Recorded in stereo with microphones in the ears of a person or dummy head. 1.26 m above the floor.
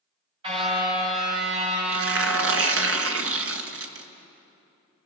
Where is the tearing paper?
70° right (ahead or behind), 1.3 m.